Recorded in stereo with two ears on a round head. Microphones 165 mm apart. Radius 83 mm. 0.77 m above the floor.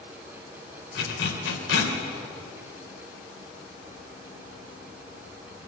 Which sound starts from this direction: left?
A zipper, at 0.9 s.